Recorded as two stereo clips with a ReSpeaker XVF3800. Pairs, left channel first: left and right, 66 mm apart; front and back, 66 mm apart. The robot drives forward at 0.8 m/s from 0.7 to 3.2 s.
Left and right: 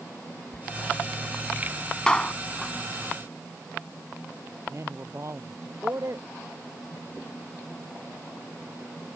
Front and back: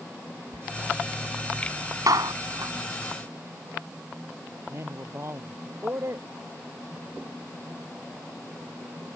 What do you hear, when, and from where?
0.5 s a door slam: 160° left
2.1 s a clap: 165° left; by 2.7 s 170° left
4.7 s a man speaking: 135° right